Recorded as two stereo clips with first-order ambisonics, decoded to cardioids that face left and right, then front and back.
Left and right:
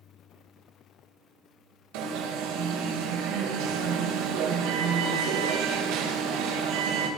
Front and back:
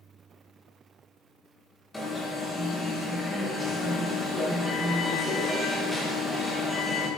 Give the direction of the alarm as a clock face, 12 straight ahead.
3 o'clock.